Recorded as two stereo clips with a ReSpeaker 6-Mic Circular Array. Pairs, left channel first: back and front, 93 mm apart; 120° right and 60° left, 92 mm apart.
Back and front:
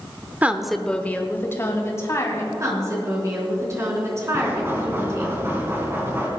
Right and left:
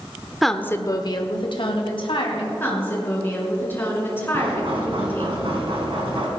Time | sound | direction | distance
0.4 | a woman speaking | 25° right | 0.8 m
2.6 | a woman speaking | 55° right | 4 m
4.3 | knocking | 65° left | 3 m